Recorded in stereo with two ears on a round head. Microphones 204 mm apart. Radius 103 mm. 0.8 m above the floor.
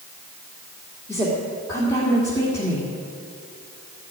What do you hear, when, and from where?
1.1 s a woman speaking: 15° left (ahead or behind), 2.0 m